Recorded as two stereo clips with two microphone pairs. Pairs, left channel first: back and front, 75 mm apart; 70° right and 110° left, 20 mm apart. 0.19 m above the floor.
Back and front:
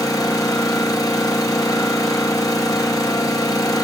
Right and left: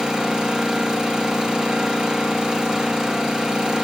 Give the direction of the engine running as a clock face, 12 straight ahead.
7 o'clock.